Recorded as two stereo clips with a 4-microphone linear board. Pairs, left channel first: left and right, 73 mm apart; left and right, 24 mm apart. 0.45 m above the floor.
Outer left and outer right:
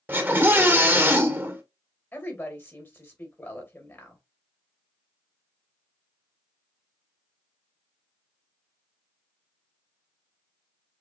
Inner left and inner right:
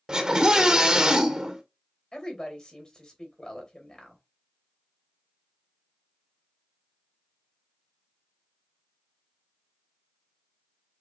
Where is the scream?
30° right (ahead or behind), 1.7 m.